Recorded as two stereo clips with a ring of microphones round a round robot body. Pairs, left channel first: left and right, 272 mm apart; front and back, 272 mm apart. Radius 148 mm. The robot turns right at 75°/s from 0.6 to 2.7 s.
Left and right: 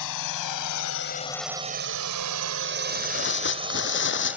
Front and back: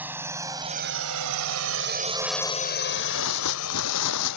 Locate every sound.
0.0 s a drone: 95° left; by 4.4 s 5° right
2.9 s tearing paper: 40° left